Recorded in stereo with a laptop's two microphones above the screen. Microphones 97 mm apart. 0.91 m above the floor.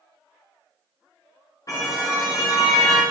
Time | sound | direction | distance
1.7 | a car horn | 40° left (ahead or behind) | 5.5 m